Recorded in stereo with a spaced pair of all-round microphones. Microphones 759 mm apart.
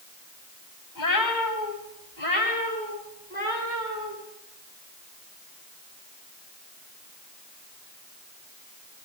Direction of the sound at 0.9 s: 75° left (ahead or behind).